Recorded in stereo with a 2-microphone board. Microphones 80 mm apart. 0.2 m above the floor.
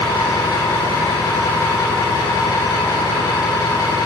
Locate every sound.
0.0 s an engine running: 55° left (ahead or behind), 9.5 m